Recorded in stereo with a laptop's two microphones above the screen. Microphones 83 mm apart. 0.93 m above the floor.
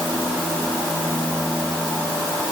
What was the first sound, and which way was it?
Only background noise.